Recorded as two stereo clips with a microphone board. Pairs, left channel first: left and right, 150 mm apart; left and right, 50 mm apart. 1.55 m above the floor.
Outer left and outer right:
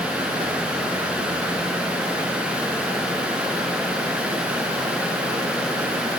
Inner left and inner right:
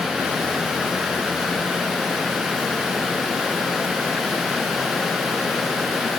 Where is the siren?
No siren in this recording.